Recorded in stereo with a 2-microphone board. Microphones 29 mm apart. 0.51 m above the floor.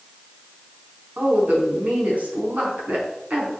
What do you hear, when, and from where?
1.2 s a woman speaking: 60° right (ahead or behind), 5 m